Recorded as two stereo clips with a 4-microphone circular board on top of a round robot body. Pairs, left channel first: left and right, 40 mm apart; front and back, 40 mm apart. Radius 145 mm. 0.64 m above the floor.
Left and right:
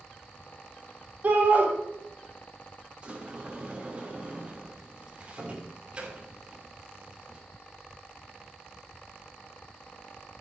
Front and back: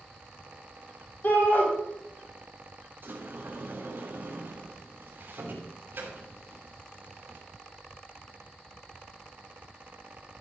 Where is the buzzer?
I don't hear a buzzer.